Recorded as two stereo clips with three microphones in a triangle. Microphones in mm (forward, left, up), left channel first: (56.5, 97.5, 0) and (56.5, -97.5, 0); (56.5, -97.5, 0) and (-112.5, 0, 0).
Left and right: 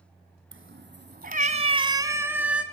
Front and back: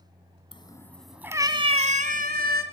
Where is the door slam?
No door slam in this recording.